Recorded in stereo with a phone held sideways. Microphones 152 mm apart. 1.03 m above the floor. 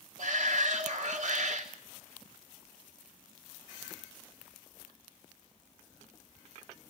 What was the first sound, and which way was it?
A shout, 60° right (ahead or behind).